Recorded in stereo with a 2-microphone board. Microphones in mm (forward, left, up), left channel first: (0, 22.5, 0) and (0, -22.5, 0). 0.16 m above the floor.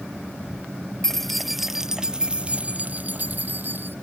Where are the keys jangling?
10° left (ahead or behind); by 4.0 s 50° right (ahead or behind).